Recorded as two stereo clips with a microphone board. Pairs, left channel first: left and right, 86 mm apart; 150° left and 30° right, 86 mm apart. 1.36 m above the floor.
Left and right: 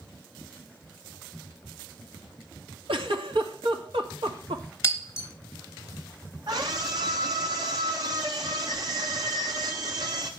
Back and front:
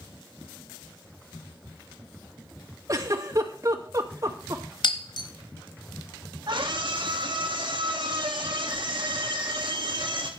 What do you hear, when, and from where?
2.9 s a giggle: 80° right, 2.5 m
4.8 s breaking glass: 145° left, 3 m
6.5 s a scream: 60° right, 1.8 m